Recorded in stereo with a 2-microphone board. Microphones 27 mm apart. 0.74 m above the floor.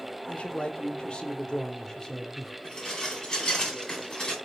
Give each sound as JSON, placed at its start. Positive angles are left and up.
{"t": 0.3, "sound": "a man speaking", "side_deg": 50, "distance_m": 1.8}
{"t": 2.6, "sound": "dishes clattering", "side_deg": 25, "distance_m": 3.5}